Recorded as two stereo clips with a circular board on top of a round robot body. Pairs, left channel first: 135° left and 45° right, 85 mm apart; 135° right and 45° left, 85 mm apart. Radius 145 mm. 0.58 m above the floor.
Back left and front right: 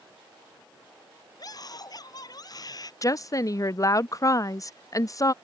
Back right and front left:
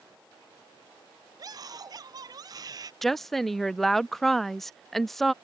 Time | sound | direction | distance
1.4 | a scream | 90° left | ?
3.0 | a woman speaking | 140° left | ?